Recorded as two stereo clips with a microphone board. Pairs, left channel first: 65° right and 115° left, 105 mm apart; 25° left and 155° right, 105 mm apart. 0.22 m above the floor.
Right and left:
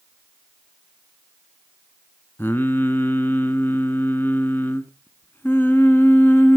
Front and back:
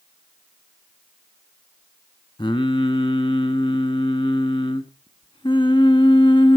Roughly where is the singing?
Ahead.